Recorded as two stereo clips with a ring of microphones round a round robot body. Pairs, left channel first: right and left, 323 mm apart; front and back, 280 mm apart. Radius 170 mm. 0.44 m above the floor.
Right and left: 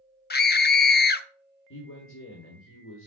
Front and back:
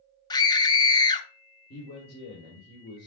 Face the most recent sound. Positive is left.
turn(degrees=-50)